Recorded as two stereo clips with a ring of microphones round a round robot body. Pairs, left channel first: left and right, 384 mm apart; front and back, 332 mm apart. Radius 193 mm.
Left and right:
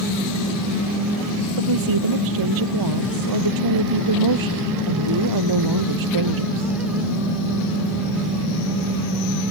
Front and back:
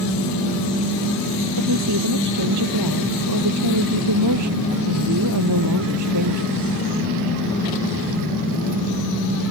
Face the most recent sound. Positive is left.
turn(degrees=-130)